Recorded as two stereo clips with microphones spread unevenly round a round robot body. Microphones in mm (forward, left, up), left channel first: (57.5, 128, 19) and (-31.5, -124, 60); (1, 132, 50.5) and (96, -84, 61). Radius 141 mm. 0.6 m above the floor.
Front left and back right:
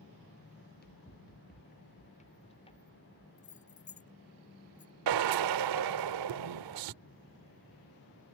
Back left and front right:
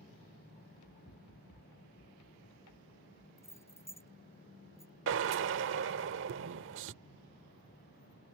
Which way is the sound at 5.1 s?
110° right.